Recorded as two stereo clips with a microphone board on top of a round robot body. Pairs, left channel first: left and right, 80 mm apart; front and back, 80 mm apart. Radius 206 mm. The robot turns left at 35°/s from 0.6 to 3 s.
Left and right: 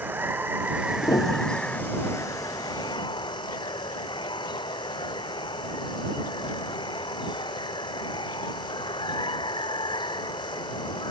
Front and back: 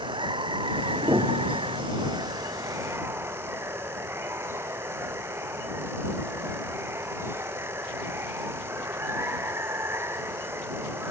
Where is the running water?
160° right; by 11.1 s 120° left.